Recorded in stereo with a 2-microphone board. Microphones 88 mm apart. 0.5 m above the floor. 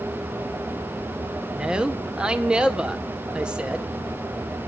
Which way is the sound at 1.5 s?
10° right (ahead or behind).